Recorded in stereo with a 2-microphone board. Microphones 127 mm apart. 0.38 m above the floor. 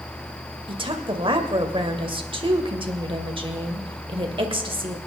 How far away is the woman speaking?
About 1.8 m.